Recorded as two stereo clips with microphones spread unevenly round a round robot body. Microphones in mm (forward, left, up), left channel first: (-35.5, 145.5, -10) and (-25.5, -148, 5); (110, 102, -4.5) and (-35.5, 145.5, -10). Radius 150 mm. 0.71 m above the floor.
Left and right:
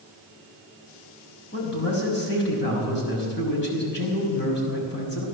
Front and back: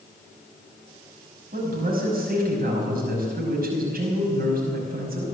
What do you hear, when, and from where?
1.5 s a man speaking: 145° left, 5.5 m